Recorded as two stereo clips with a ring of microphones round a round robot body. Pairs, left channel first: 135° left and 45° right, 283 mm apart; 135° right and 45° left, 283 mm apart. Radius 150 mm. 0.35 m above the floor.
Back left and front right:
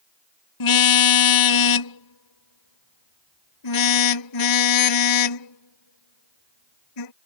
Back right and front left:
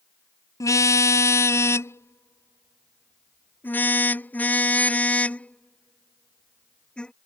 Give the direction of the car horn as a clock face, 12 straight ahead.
7 o'clock.